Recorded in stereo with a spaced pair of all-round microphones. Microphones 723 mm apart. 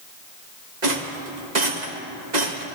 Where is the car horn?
No car horn in this recording.